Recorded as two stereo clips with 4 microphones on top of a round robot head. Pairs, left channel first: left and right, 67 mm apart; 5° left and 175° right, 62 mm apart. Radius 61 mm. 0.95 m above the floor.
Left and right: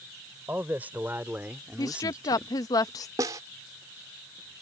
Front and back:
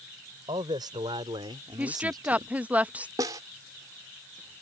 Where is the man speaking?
160° right; by 2.5 s 170° right.